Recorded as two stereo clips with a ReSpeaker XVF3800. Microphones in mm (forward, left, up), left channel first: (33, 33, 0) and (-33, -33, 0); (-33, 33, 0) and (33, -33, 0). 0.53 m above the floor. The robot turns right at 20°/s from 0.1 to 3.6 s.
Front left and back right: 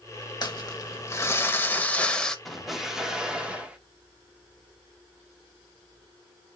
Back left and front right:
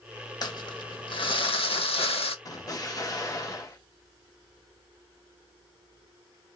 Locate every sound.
0.4 s crumpling: 90° left, 0.6 m; by 2.4 s 130° left, 0.6 m
2.5 s an explosion: 135° left, 0.7 m; by 3.8 s 155° left, 0.7 m